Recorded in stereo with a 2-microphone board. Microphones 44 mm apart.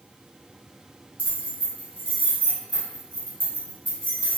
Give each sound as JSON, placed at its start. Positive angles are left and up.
{"t": 1.2, "sound": "keys jangling", "side_deg": 35, "distance_m": 1.3}